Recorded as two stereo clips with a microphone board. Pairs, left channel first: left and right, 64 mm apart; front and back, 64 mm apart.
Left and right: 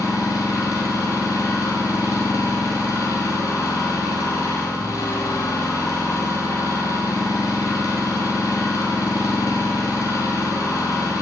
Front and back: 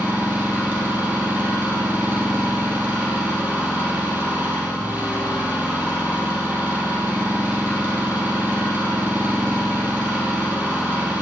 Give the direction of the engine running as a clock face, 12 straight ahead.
8 o'clock.